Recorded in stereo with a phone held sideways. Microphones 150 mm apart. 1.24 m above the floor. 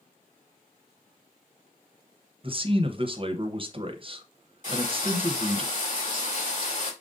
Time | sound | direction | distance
2.4 | a man speaking | 40° right (ahead or behind) | 0.7 m
4.6 | frying | 55° left (ahead or behind) | 3 m